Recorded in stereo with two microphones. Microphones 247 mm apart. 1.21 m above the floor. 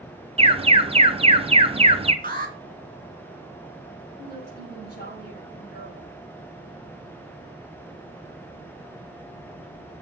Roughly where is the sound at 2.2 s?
Right.